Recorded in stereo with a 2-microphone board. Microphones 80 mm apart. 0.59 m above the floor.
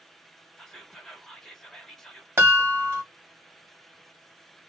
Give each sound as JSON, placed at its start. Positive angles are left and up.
{"t": 0.6, "sound": "whispering", "side_deg": 5, "distance_m": 1.0}
{"t": 2.4, "sound": "a chime", "side_deg": -30, "distance_m": 1.6}